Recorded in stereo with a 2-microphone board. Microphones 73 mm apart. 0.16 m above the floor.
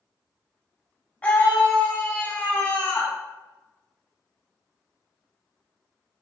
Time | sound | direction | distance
1.2 | a scream | 20° left (ahead or behind) | 1.1 m